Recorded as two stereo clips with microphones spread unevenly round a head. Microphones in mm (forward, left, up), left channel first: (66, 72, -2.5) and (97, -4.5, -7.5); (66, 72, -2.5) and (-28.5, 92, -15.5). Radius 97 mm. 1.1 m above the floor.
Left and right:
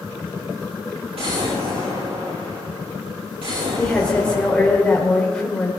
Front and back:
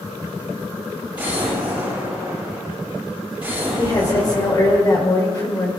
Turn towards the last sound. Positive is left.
turn(degrees=35)